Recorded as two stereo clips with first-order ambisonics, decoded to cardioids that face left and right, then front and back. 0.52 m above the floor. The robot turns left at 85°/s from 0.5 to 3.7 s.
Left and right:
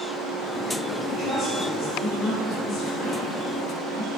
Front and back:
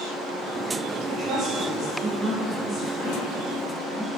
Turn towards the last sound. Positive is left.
turn(degrees=-45)